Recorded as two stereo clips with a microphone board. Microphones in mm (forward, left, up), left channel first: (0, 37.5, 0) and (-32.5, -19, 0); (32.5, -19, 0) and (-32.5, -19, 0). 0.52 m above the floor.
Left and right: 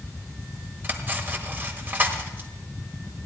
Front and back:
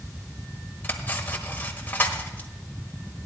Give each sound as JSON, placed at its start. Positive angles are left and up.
{"t": 0.8, "sound": "cutlery clinking", "azimuth_deg": -60, "distance_m": 1.4}